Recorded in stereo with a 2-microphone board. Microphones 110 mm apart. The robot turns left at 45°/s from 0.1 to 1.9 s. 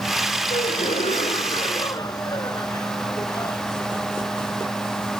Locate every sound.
0.5 s a gasp: 100° left; by 3.6 s 35° left